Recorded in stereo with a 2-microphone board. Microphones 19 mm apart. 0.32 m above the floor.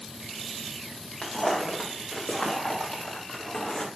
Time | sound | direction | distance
1.2 | footsteps | 70° left (ahead or behind) | 4 m